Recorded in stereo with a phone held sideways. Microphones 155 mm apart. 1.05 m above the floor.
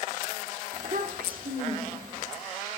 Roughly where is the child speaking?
Right.